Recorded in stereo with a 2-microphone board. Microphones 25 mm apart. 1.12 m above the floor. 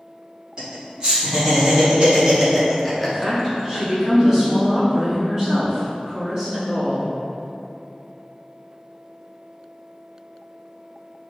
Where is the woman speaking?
15° right (ahead or behind), 1.3 m.